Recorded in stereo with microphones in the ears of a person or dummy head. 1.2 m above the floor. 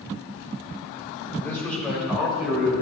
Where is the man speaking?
10° left (ahead or behind), 4.5 m; by 2.7 s 10° right (ahead or behind), 4.5 m.